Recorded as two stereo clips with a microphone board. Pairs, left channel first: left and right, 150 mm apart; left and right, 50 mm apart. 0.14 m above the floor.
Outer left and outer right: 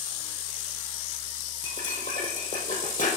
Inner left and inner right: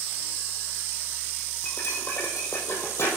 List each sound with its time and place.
1.6 s cutlery clinking: 65° left (ahead or behind), 3 m